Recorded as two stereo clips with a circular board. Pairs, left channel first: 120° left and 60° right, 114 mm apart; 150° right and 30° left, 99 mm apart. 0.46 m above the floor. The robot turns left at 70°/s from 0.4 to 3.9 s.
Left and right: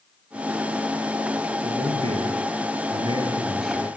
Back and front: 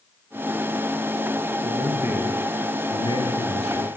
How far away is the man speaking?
About 7 m.